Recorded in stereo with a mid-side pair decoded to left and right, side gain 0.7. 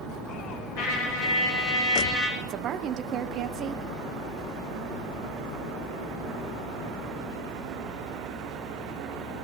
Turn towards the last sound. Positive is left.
turn(degrees=-45)